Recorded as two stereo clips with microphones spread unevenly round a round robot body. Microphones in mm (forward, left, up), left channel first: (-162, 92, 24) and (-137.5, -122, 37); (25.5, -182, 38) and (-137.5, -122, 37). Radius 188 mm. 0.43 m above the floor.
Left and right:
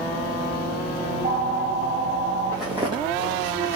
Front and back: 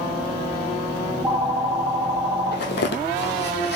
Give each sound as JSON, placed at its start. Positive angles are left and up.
{"t": 1.1, "sound": "a phone ringing", "azimuth_deg": -130, "distance_m": 2.0}
{"t": 2.5, "sound": "footsteps", "azimuth_deg": 10, "distance_m": 0.7}